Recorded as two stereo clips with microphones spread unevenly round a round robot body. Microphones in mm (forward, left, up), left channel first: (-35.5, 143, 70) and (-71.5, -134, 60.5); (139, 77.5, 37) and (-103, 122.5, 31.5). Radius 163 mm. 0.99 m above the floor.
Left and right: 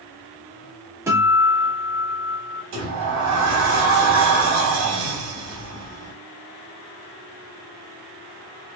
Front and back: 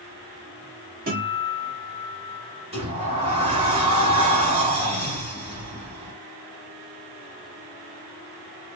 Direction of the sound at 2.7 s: 125° right.